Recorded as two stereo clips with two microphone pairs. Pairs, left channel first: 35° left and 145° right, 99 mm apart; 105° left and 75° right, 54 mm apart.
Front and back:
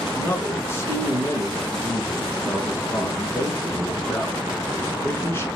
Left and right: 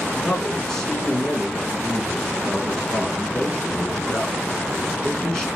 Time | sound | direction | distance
0.1 | a man speaking | 45° left | 1.1 m